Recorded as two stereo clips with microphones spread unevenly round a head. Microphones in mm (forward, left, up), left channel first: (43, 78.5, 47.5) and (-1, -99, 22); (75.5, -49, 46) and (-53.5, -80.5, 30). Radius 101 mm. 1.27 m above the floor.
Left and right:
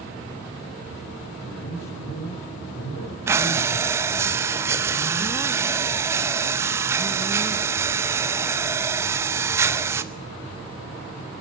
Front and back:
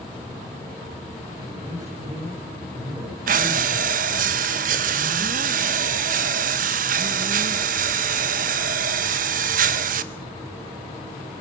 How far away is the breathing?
About 0.6 m.